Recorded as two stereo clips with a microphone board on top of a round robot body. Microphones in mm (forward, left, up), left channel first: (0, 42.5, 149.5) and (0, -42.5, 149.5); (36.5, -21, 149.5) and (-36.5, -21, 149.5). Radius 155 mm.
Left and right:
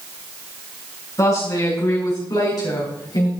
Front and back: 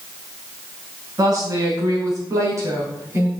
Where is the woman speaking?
140° left, 5.5 m; by 3.3 s 125° left, 4 m.